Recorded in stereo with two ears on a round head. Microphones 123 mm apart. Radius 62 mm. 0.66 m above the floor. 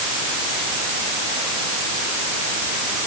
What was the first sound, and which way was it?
Only background noise.